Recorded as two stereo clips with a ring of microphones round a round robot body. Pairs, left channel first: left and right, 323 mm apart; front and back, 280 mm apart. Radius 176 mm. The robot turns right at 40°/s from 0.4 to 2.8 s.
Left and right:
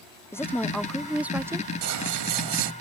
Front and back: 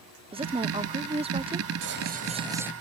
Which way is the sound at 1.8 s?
130° right.